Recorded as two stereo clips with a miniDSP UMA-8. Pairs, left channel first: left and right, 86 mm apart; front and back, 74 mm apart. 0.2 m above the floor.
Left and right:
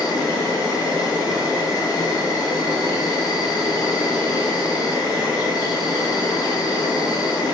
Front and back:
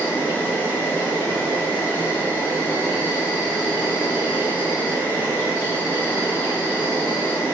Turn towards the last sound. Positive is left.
turn(degrees=60)